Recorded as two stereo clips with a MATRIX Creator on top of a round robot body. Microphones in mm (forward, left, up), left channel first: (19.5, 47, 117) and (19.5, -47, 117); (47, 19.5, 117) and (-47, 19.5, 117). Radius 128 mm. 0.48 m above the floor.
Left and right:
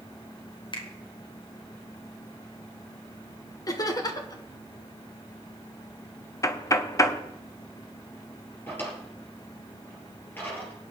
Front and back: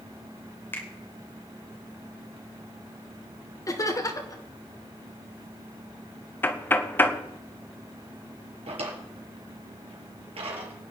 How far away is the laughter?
About 2.5 m.